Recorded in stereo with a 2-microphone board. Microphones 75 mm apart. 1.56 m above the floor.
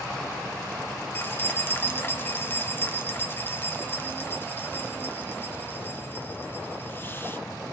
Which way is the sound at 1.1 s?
30° left (ahead or behind).